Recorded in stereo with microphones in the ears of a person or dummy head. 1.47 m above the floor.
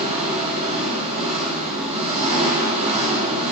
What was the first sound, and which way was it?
An engine running, 35° right (ahead or behind).